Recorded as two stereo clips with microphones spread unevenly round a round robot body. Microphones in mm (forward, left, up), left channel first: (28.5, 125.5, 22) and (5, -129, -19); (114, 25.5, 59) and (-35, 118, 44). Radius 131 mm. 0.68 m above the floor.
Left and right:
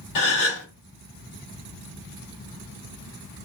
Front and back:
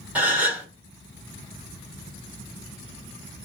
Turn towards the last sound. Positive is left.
turn(degrees=70)